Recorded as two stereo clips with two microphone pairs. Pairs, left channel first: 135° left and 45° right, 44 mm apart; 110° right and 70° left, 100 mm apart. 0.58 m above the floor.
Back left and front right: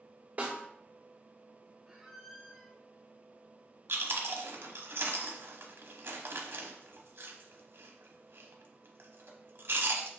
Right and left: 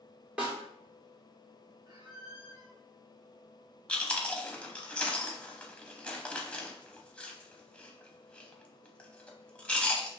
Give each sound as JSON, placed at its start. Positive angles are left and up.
{"t": 0.4, "sound": "a snare drum", "azimuth_deg": 0, "distance_m": 1.9}
{"t": 1.9, "sound": "a squeak", "azimuth_deg": 35, "distance_m": 1.1}
{"t": 3.9, "sound": "chewing", "azimuth_deg": -25, "distance_m": 0.8}